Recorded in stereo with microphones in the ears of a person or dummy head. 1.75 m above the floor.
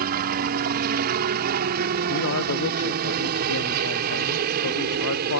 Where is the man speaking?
85° left.